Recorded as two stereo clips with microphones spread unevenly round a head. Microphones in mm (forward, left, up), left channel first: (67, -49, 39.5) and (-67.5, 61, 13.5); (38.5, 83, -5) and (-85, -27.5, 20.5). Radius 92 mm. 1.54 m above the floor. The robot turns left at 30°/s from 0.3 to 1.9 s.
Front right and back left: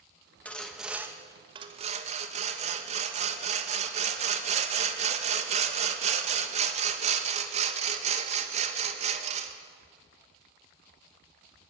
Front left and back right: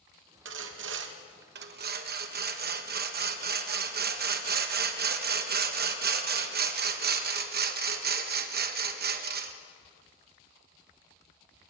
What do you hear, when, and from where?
0.5 s sawing: 120° right, 1.6 m; by 9.5 s 165° right, 1.6 m